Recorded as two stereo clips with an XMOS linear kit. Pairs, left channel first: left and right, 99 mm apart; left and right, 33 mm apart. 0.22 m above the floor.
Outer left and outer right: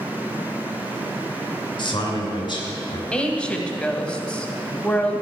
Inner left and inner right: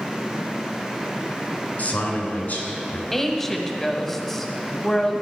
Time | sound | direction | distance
1.8 | a man speaking | 50° left (ahead or behind) | 2.5 m
3.1 | a woman speaking | 10° left (ahead or behind) | 1.0 m